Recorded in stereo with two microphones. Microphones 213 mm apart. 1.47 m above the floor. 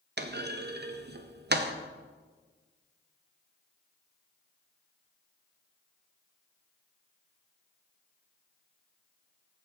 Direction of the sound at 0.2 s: 50° right (ahead or behind).